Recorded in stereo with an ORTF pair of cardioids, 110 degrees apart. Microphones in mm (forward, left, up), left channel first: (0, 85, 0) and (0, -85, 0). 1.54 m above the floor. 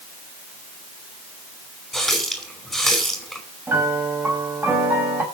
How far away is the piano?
About 5 m.